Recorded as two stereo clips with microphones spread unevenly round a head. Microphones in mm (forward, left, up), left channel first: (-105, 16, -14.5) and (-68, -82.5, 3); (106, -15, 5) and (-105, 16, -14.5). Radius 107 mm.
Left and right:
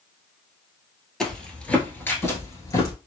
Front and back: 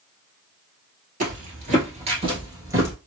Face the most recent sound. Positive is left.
turn(degrees=95)